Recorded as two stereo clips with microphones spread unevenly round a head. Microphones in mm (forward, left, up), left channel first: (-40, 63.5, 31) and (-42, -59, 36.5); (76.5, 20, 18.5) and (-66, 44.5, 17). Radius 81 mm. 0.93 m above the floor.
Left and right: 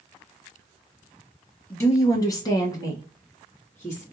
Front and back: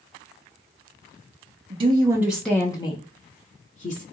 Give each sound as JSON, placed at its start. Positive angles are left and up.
{"t": 1.7, "sound": "a woman speaking", "azimuth_deg": 150, "distance_m": 0.8}